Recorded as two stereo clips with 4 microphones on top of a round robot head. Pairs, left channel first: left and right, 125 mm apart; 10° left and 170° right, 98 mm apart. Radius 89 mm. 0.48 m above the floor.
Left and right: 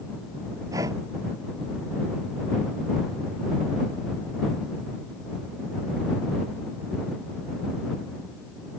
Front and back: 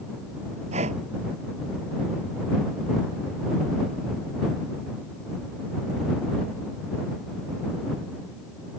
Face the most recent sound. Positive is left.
turn(degrees=-160)